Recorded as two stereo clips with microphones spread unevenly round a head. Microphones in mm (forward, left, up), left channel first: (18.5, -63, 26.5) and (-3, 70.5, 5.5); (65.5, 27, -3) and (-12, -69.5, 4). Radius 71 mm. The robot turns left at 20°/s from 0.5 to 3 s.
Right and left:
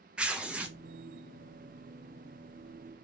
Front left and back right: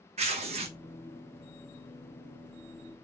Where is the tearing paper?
175° right, 0.5 m; by 0.8 s straight behind, 0.5 m.